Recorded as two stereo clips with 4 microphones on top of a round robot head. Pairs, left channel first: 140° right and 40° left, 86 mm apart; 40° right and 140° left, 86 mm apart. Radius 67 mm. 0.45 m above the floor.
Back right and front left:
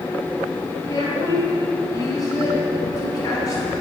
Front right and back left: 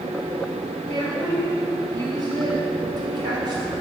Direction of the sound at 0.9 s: 170° left.